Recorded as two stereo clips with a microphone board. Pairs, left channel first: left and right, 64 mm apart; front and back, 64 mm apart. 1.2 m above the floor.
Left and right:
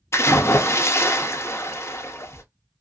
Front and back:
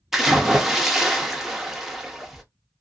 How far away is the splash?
About 0.7 m.